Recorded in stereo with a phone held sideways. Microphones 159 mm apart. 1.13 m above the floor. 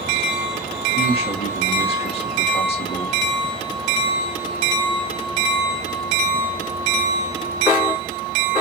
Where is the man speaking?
40° left (ahead or behind), 1.5 m.